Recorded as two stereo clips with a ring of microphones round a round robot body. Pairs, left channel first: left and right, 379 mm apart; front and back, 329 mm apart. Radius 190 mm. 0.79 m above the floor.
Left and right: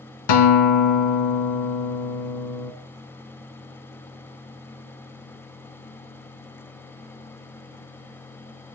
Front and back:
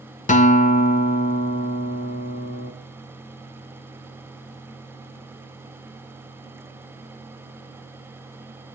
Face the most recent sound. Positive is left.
turn(degrees=65)